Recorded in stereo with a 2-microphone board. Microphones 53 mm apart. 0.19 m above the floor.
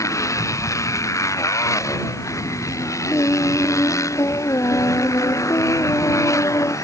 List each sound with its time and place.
0.0 s a motorcycle: 80° left
3.1 s singing: 65° left (ahead or behind)